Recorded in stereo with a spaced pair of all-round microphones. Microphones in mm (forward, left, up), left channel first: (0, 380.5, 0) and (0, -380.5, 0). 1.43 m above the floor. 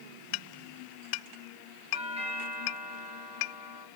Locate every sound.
1.9 s a doorbell: 10° right (ahead or behind), 1.8 m